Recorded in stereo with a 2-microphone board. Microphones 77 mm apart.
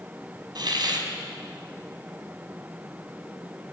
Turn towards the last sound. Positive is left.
turn(degrees=-65)  # may be behind; listen again after turning